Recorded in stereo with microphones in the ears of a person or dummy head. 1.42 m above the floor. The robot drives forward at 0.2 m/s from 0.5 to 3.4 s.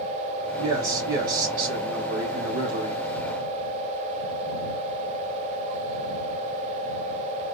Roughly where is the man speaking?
Right.